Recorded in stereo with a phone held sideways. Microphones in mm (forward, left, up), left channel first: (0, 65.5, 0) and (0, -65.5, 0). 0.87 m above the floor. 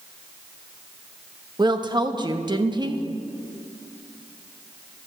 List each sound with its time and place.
1.6 s a woman speaking: 35° right (ahead or behind), 0.9 m